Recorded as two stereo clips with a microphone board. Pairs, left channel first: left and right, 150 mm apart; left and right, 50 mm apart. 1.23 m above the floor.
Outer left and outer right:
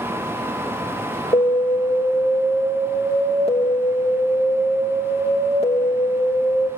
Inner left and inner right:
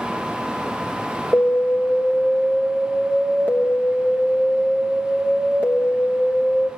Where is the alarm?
40° left (ahead or behind), 3.5 m.